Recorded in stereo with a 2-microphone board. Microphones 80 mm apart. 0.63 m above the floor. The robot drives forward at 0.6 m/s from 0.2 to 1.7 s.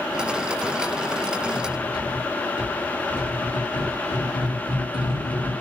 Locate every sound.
1.5 s cutlery clinking: 60° left (ahead or behind), 5.5 m